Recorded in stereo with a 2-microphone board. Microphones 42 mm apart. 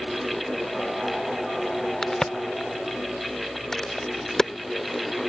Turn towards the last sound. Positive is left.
turn(degrees=15)  # may be behind; listen again after turning